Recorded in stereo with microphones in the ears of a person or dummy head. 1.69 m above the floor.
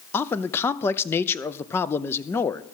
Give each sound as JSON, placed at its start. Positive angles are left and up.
{"t": 0.1, "sound": "a man speaking", "side_deg": 15, "distance_m": 0.6}